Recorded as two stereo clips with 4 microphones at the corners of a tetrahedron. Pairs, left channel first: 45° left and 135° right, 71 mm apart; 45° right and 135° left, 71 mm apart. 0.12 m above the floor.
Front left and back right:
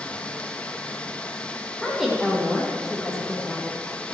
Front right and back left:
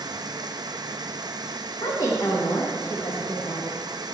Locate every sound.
0.0 s running water: 120° left, 1.1 m
1.8 s a woman speaking: 45° right, 5.5 m